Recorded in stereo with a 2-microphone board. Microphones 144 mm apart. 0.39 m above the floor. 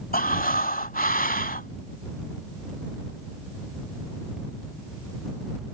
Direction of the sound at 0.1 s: 70° left (ahead or behind).